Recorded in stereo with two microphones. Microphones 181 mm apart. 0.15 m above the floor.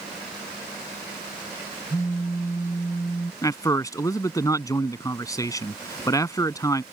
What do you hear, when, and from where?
1.9 s a phone buzzing: 15° left (ahead or behind)
3.4 s a man speaking: 20° left (ahead or behind)